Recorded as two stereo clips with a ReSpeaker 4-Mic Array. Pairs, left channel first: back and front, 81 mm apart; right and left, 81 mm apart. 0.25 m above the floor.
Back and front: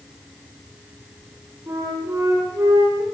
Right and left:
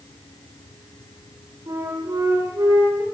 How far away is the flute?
About 9 m.